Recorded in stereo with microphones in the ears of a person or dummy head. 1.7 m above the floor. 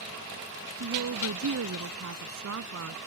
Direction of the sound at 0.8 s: 85° right.